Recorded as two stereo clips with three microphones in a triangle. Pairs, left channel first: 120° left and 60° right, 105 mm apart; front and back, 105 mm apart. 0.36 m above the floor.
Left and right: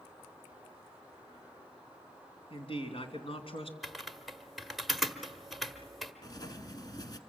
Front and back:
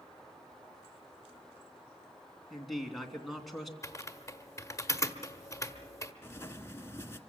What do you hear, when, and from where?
2.5 s a man speaking: 90° left, 3 m
3.8 s typing on a keyboard: 30° left, 1.3 m
6.2 s writing: 65° left, 1.4 m